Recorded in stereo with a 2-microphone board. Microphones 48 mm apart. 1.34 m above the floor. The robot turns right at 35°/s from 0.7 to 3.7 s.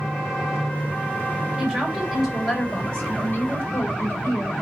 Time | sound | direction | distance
1.6 | a woman speaking | 25° right | 9.5 m